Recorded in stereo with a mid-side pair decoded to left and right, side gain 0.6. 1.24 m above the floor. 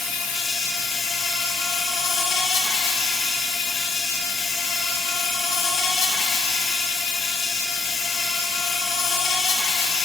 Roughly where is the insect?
Ahead left.